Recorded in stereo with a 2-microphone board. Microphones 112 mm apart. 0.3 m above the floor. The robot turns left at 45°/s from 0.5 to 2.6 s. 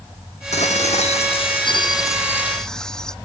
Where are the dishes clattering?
100° left; by 3.1 s 5° left.